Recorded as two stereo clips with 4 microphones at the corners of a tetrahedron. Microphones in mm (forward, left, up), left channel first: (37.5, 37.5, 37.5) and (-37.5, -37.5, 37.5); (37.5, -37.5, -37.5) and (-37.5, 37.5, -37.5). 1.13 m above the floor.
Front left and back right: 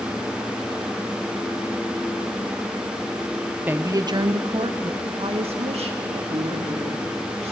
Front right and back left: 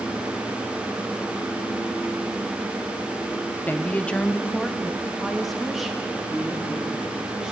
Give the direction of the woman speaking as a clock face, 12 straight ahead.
3 o'clock.